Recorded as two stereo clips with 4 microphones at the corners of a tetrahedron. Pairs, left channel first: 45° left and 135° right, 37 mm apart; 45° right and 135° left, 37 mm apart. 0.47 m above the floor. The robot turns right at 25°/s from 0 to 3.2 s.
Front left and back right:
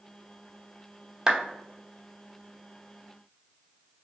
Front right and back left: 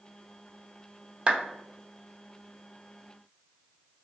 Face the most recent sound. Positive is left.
turn(degrees=-140)